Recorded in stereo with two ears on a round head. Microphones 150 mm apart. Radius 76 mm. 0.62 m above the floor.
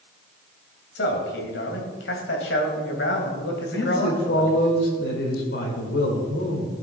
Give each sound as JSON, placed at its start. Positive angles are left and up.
{"t": 0.9, "sound": "a man speaking", "side_deg": 70, "distance_m": 3.0}
{"t": 3.7, "sound": "a man speaking", "side_deg": 70, "distance_m": 2.5}